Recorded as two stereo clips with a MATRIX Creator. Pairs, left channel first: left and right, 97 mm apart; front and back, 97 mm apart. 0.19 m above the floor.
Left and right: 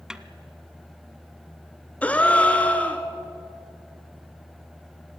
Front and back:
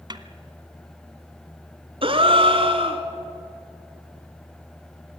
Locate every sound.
0.1 s a snare drum: 170° right, 1.1 m
2.0 s a gasp: 165° left, 1.7 m